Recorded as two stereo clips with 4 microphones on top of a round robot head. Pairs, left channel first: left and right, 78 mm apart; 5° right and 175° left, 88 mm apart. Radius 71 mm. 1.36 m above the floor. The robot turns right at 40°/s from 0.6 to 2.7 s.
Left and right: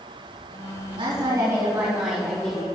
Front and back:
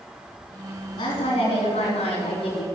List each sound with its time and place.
1.0 s a woman speaking: 55° right, 4 m; by 2.6 s 15° left, 4 m